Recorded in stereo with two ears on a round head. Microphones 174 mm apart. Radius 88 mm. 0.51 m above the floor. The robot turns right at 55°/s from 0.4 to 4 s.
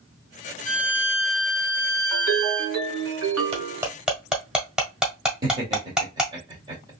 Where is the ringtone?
160° right, 2.5 m; by 3.9 s 65° right, 2.5 m.